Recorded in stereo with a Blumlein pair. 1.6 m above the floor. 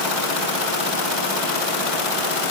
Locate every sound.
Only background noise.